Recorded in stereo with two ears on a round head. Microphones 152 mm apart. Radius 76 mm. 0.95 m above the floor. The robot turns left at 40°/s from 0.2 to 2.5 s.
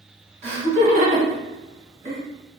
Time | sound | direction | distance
0.4 | laughter | 40° right (ahead or behind) | 1.1 m